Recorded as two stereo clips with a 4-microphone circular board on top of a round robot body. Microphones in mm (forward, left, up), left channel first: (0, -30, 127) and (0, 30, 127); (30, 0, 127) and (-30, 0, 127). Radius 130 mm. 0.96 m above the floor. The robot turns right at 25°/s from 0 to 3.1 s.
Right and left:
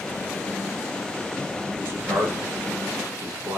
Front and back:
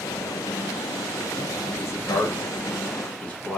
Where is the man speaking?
35° left, 1.1 m; by 3.6 s 70° left, 1.1 m.